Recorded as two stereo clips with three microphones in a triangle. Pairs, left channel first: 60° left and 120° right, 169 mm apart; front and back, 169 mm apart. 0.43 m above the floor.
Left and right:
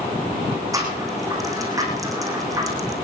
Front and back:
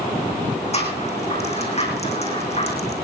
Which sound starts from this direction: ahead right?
A rattle, at 0.7 s.